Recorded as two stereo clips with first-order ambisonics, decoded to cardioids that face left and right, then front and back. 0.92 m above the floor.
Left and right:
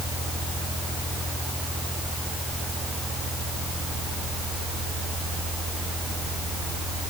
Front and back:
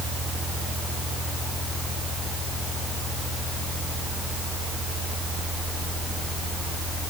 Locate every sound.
Only background noise.